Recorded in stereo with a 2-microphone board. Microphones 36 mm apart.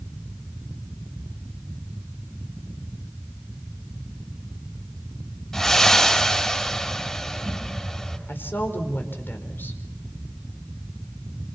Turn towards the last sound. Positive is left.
turn(degrees=80)